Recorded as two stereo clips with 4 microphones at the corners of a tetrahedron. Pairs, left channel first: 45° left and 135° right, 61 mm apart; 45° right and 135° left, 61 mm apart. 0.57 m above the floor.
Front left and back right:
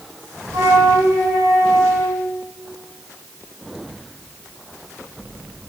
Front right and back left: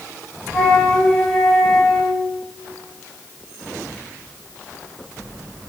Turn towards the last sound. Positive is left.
turn(degrees=-130)